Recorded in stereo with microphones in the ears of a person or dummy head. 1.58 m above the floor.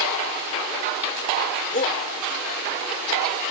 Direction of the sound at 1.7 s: 40° left (ahead or behind).